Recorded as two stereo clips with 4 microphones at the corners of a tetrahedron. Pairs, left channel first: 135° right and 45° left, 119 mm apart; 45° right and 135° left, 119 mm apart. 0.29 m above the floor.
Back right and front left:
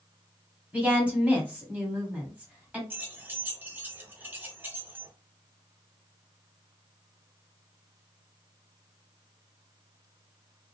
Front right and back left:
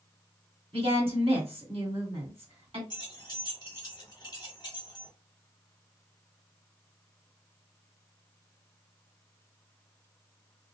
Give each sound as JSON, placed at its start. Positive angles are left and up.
{"t": 0.7, "sound": "a woman speaking", "azimuth_deg": 120, "distance_m": 1.8}
{"t": 2.9, "sound": "keys jangling", "azimuth_deg": -20, "distance_m": 0.8}